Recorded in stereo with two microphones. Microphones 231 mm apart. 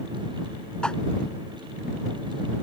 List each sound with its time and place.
0.8 s a whoosh: 5° left (ahead or behind)